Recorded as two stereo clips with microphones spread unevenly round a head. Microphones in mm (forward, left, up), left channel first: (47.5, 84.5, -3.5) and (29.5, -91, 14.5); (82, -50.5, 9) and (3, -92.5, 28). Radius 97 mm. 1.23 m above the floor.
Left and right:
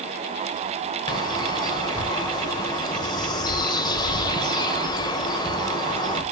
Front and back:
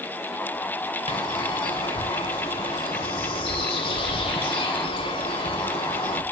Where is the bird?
15° left, 1.5 m.